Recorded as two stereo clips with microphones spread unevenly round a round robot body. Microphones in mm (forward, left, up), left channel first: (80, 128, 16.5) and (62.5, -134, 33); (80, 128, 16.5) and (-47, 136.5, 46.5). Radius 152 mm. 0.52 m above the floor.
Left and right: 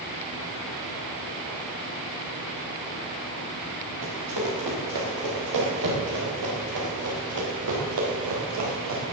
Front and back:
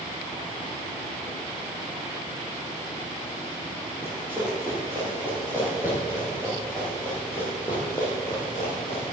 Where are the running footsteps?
110° right, 7 m; by 9.0 s 80° right, 6 m.